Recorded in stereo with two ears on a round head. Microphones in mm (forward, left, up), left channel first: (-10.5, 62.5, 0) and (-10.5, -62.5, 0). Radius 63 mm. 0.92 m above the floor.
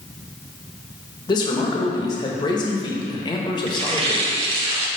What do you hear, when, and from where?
1.3 s a man speaking: 30° left (ahead or behind), 1.1 m
3.7 s tearing paper: 40° right (ahead or behind), 0.9 m